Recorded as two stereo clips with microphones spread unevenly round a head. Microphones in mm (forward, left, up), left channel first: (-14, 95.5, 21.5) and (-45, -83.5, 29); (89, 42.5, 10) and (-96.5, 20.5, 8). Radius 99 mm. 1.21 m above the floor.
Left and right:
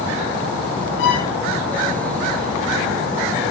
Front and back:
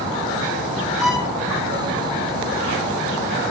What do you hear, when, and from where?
1.0 s a violin: 100° left, 9.5 m